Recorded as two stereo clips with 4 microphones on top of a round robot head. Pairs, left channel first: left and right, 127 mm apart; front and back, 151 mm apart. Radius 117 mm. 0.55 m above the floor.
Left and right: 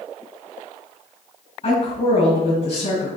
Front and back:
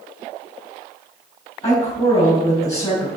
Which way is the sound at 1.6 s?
70° left.